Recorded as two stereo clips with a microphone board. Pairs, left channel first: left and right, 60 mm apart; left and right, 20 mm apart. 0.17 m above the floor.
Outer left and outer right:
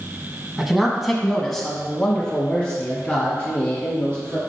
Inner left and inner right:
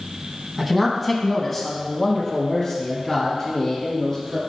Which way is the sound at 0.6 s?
10° right (ahead or behind).